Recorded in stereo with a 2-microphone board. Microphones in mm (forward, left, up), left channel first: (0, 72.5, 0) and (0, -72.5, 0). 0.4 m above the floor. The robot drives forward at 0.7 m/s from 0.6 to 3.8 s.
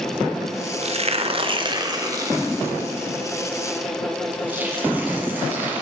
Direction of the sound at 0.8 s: 45° right (ahead or behind).